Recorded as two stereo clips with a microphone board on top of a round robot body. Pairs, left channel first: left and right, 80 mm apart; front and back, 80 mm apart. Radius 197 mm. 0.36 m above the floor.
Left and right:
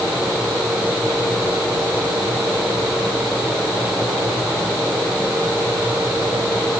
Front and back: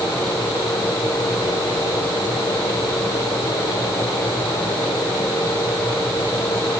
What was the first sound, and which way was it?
Only background noise.